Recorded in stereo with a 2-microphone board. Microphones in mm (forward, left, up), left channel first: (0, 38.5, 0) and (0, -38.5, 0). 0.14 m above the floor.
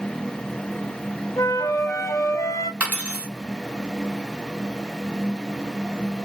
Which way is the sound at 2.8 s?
15° right (ahead or behind).